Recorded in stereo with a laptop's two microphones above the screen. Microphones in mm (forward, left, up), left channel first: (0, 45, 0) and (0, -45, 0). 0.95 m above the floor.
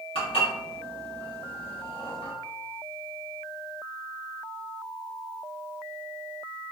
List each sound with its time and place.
0.1 s dishes clattering: 80° left, 1.2 m